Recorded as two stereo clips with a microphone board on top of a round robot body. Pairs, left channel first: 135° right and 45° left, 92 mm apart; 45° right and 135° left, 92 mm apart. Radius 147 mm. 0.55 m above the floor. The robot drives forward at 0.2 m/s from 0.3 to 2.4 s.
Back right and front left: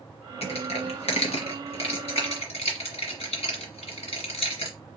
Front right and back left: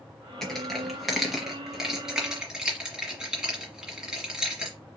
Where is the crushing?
130° right, 1.3 m; by 4.8 s 140° right, 1.6 m.